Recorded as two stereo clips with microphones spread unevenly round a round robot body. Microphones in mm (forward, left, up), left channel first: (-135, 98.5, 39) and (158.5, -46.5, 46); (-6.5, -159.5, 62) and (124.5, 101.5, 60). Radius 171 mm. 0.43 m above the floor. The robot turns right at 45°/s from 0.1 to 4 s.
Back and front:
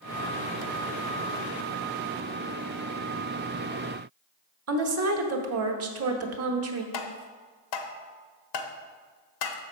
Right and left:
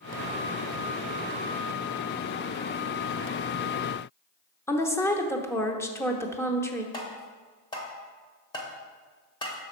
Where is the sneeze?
I don't hear a sneeze.